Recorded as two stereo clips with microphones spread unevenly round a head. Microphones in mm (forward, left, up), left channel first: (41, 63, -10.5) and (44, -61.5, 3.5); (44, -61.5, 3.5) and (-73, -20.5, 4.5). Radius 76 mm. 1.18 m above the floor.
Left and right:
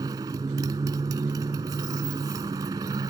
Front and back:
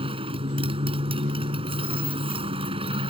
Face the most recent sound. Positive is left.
turn(degrees=-155)